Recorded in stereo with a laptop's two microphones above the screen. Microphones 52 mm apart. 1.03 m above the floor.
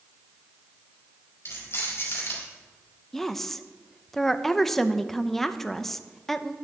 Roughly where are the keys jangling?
Left.